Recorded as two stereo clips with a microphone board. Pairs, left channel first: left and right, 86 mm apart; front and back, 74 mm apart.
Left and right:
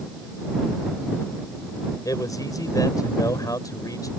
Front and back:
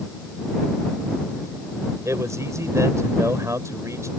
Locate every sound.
2.0 s a man speaking: 135° left